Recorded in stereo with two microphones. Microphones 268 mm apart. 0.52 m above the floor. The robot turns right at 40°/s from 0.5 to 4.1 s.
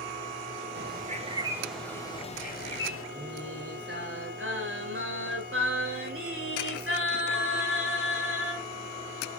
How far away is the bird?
About 0.8 m.